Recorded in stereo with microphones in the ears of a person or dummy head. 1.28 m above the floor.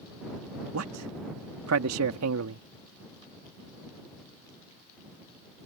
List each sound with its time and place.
0.7 s a man speaking: 85° right